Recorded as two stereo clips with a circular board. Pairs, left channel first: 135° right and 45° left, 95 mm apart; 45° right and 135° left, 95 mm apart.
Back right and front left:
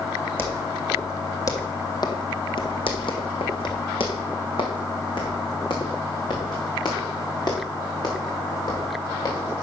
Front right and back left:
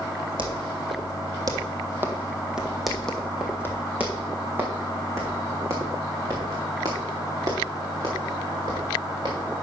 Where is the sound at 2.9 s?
140° right, 1.9 m; by 9.4 s straight behind, 5 m.